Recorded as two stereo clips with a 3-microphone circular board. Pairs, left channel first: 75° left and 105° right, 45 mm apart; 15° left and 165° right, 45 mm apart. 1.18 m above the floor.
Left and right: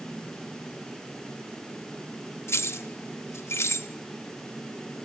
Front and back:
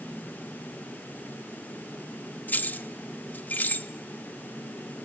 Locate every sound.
2.5 s keys jangling: 65° left, 1.0 m